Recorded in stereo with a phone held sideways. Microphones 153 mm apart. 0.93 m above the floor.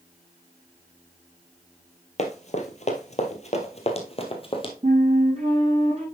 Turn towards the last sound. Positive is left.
turn(degrees=-40)  # may be behind; listen again after turning